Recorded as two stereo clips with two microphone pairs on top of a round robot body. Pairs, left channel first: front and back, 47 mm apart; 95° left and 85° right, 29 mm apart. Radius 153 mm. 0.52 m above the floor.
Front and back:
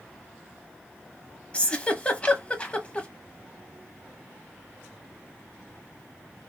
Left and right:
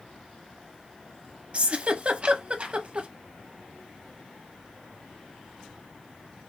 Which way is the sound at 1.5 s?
45° right.